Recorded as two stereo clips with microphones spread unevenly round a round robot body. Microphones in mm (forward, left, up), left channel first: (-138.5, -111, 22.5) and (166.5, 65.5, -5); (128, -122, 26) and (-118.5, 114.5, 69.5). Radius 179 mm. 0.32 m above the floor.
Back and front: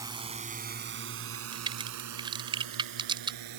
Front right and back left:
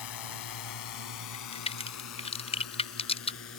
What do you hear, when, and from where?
0.0 s a drone: 50° right; by 3.6 s 10° left
1.3 s a crack: 20° right